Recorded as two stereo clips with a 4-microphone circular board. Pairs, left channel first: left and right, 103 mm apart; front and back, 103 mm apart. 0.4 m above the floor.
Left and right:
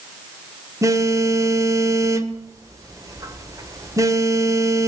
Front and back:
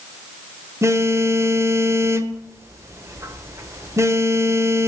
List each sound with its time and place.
0.8 s a phone buzzing: 130° right, 1.3 m